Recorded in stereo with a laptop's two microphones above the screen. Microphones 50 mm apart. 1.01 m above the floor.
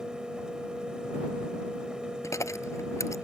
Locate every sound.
0.0 s a fan: 15° right (ahead or behind)
2.2 s a dropped coin: 75° left (ahead or behind)